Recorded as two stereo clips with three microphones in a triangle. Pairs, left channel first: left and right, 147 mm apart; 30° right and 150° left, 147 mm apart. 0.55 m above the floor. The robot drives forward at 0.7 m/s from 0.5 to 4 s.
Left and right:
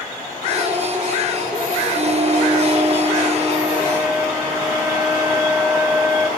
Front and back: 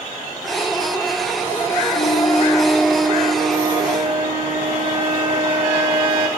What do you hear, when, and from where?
1.9 s a flute: 45° right, 0.7 m; by 6.3 s 160° right, 1.2 m